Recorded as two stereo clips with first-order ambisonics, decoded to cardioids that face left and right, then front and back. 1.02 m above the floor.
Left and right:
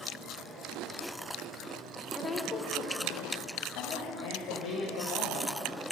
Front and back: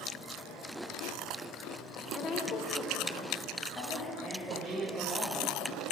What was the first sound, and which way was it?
A woman speaking, 10° left.